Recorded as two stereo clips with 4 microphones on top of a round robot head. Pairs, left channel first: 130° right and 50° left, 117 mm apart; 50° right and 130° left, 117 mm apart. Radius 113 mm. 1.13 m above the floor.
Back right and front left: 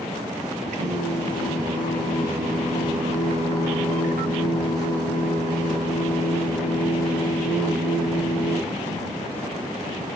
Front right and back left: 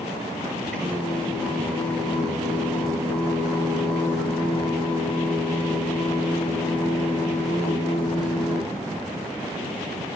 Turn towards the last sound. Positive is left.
turn(degrees=30)